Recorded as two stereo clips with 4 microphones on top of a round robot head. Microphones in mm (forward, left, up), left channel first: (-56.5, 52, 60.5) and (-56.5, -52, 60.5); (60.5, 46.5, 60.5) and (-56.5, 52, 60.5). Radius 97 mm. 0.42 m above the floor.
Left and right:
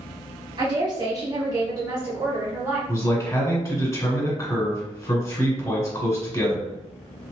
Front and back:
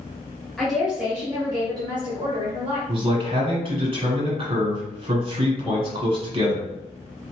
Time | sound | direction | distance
0.6 | a woman speaking | 85° right | 0.9 m
2.9 | a man speaking | 150° left | 1.9 m